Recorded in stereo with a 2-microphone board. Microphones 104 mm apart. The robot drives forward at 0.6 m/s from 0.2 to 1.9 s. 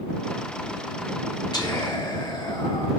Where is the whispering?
45° left (ahead or behind), 1.2 m; by 2.9 s 40° left (ahead or behind), 1.3 m.